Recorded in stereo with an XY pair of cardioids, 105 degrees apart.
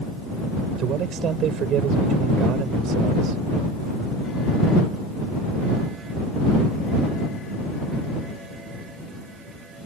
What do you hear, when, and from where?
0.8 s a man speaking: 70° right